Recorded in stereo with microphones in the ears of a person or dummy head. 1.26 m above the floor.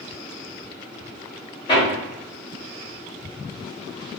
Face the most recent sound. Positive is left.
turn(degrees=25)  # may be behind; listen again after turning